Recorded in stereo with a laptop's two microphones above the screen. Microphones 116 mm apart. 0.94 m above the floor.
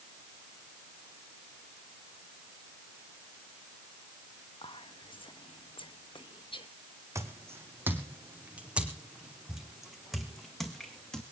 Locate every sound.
4.6 s whispering: 50° left (ahead or behind), 0.8 m
7.2 s footsteps: 25° right (ahead or behind), 3 m; by 11.2 s 5° left (ahead or behind), 4 m